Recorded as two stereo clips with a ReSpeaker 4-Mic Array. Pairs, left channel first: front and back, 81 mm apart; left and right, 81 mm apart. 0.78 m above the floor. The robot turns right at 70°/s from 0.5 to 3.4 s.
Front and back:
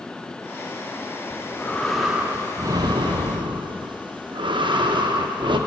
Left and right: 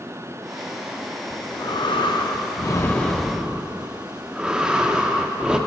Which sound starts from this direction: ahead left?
Breathing, at 1.3 s.